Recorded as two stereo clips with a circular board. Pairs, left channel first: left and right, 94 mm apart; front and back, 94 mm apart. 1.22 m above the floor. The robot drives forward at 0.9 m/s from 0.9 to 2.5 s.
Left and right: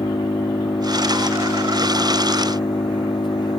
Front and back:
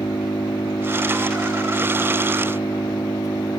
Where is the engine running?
50° left; by 3.6 s 55° left.